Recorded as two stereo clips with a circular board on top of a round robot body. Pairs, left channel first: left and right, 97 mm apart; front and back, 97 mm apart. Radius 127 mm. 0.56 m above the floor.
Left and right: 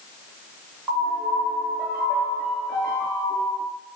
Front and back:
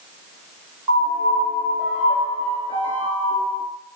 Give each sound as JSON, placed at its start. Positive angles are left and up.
{"t": 0.9, "sound": "a piano", "azimuth_deg": -165, "distance_m": 1.4}